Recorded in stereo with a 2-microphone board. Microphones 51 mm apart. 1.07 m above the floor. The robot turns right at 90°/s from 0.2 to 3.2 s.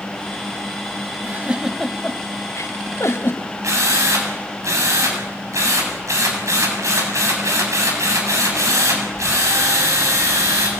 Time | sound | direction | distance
1.2 | a giggle | 45° right (ahead or behind) | 2 m
3.6 | a drill | 85° right | 7.5 m